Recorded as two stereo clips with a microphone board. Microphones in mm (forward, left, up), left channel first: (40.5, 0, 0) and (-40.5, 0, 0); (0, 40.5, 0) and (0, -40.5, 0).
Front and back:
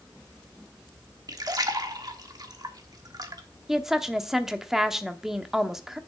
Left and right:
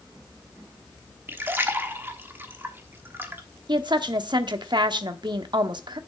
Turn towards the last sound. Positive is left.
turn(degrees=-95)